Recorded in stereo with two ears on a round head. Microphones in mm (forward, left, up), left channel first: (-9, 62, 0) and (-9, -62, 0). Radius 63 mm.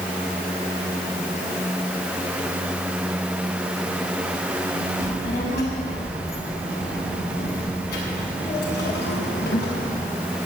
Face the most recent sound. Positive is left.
turn(degrees=80)